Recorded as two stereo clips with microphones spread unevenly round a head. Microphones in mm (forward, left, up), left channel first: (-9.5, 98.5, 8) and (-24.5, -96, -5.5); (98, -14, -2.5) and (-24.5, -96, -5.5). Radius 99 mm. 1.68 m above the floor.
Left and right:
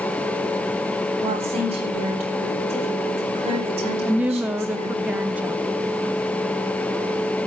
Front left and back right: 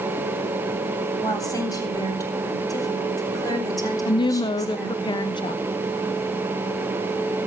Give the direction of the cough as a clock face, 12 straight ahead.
I don't hear a cough.